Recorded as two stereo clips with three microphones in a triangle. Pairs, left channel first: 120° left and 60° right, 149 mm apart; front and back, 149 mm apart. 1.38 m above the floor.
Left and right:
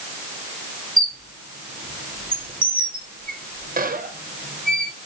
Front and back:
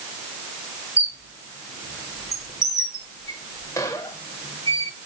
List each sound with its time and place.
1.0 s a squeak: 65° right, 0.6 m